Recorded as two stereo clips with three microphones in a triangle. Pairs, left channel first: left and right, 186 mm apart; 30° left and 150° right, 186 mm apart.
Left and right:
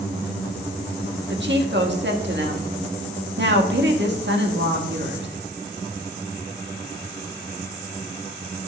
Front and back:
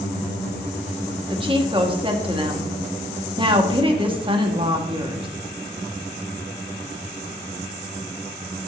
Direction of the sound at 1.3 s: 85° right.